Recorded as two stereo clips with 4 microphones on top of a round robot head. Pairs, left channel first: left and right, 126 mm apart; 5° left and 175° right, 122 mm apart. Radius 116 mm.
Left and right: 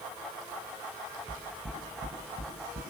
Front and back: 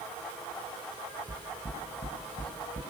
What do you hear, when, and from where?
1.3 s knocking: 50° right, 6.5 m